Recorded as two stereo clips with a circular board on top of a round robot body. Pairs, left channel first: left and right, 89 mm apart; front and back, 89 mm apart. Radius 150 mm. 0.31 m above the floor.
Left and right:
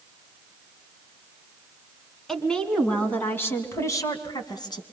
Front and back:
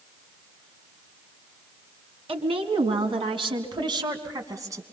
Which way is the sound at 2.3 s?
175° left.